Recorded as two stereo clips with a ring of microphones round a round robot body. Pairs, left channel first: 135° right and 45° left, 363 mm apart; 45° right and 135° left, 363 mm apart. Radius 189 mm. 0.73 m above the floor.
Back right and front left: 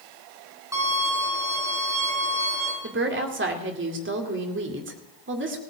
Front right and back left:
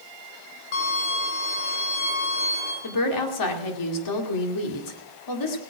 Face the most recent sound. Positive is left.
turn(degrees=-15)